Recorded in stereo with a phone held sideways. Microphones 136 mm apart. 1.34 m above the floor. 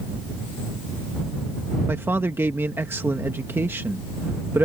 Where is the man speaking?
15° right (ahead or behind).